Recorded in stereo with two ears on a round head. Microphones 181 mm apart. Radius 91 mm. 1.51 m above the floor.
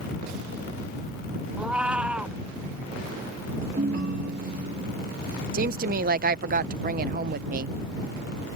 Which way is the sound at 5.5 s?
45° right (ahead or behind).